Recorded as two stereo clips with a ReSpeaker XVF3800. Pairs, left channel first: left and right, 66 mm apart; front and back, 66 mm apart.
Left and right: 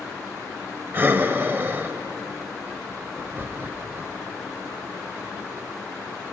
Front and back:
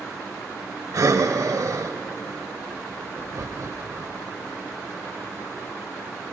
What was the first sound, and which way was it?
Breathing, 145° right.